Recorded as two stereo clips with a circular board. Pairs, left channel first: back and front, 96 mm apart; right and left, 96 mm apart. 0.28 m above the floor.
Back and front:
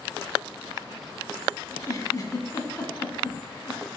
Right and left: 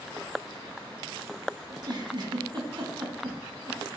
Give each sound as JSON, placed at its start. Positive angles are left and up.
{"t": 1.7, "sound": "a giggle", "azimuth_deg": 130, "distance_m": 1.5}